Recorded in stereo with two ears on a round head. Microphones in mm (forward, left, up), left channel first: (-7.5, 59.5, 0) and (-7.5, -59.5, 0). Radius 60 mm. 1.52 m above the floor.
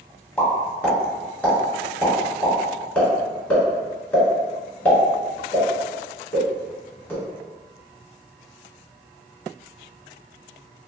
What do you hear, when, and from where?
0.4 s a pop: 10° left (ahead or behind), 1.1 m